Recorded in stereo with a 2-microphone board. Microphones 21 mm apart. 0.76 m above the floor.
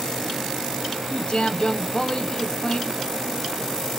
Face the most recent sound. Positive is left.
turn(degrees=45)  # may be behind; listen again after turning